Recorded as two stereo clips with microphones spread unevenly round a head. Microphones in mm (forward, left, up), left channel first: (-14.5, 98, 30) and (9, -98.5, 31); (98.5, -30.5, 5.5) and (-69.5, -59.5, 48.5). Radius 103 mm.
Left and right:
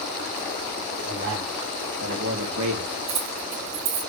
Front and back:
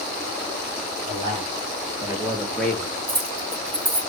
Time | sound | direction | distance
1.1 | a man speaking | 120° right | 3.5 m
3.1 | keys jangling | 115° right | 6 m